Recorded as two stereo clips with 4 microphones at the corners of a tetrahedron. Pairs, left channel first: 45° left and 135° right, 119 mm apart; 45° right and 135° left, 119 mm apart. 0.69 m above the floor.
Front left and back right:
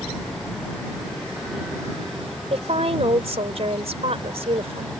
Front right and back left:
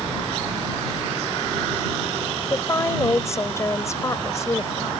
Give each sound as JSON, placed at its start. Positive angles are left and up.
{"t": 2.5, "sound": "a woman speaking", "azimuth_deg": -110}